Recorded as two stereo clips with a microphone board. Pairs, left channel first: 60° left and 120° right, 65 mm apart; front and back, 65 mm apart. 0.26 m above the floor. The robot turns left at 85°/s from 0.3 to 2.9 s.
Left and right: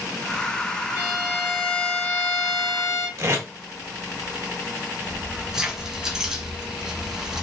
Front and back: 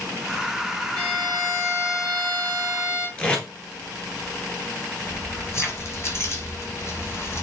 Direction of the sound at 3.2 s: 70° right.